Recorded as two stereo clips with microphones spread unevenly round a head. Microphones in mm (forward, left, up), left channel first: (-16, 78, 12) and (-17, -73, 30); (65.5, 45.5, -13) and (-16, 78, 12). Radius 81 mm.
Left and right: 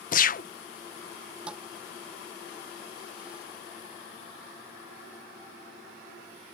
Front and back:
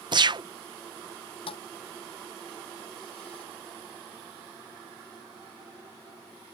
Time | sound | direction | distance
0.1 | a gunshot | 120° left | ?
1.5 | a thud | 5° right | ?